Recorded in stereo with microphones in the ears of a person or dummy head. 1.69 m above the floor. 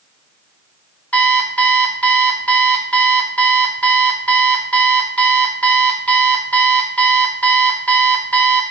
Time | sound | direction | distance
1.1 | an alarm clock | 5° left (ahead or behind) | 1.1 m